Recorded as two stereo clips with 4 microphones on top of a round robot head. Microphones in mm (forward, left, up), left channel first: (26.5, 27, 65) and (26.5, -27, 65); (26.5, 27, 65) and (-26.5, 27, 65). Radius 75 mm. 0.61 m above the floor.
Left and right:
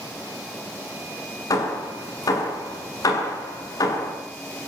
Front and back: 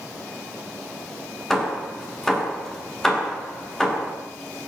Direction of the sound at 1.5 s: 80° left.